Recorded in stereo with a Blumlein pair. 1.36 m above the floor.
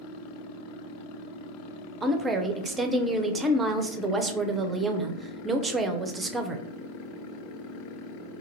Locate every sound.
2.0 s a woman speaking: 15° right, 0.6 m